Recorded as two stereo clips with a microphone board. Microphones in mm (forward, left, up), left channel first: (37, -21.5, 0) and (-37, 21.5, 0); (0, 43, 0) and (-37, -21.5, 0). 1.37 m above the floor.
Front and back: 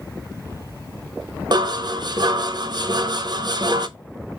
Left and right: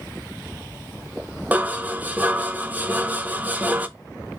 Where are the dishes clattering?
175° left, 0.7 m.